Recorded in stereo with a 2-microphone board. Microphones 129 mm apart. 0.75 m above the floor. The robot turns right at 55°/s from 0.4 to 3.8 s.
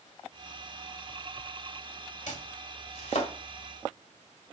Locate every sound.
2.3 s chopping: 70° left (ahead or behind), 1.8 m; by 3.3 s 50° left (ahead or behind), 1.8 m